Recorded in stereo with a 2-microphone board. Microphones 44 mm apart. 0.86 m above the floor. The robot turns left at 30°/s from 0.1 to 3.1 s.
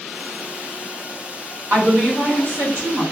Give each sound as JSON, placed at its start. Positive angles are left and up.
{"t": 1.7, "sound": "a woman speaking", "azimuth_deg": -65, "distance_m": 2.5}